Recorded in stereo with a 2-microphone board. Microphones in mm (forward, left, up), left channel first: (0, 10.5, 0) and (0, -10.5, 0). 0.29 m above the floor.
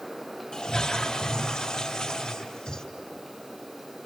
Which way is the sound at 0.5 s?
45° left (ahead or behind).